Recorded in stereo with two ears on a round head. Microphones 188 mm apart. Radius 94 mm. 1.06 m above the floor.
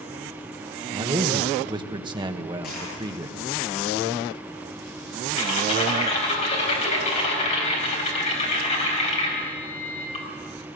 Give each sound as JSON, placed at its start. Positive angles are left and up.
{"t": 0.9, "sound": "a man speaking", "side_deg": -20, "distance_m": 1.2}
{"t": 2.6, "sound": "a dropped coin", "side_deg": 45, "distance_m": 9.0}
{"t": 5.4, "sound": "typing on a keyboard", "side_deg": 30, "distance_m": 4.5}